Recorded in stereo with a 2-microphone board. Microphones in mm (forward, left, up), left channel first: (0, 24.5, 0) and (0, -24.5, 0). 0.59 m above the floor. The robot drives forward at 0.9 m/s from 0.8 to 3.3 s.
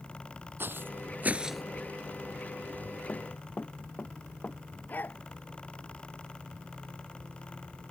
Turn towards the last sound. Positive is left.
turn(degrees=40)  # may be behind; listen again after turning